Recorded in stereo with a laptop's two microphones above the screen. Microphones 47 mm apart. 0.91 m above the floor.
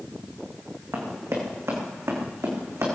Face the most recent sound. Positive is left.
turn(degrees=-75)  # may be behind; listen again after turning